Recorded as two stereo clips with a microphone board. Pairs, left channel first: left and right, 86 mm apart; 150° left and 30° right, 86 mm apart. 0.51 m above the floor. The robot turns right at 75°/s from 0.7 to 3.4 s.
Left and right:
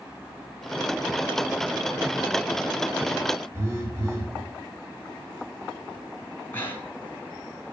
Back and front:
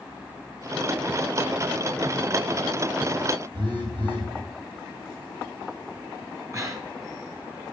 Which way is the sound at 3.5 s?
35° right.